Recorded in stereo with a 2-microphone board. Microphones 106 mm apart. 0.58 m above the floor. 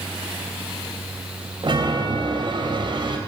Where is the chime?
50° right (ahead or behind), 3 m.